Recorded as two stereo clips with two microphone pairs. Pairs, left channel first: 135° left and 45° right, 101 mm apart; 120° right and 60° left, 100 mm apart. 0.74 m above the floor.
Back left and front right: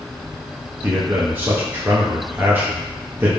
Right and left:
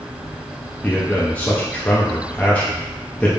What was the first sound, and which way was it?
A man speaking, 70° right.